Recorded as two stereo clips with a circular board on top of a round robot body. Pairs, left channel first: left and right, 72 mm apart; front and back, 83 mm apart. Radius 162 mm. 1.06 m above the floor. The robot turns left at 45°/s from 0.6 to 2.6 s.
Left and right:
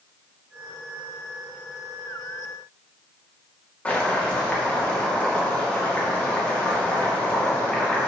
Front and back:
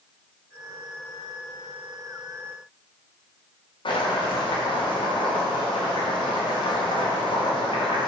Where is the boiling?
20° left, 2.5 m.